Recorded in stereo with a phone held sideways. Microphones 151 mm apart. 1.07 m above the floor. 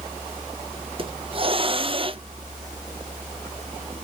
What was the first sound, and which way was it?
A hiss, 35° right (ahead or behind).